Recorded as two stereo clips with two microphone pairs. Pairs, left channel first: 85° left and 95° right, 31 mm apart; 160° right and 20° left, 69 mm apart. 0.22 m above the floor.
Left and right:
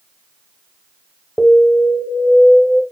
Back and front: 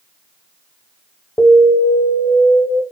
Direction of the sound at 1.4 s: 115° left.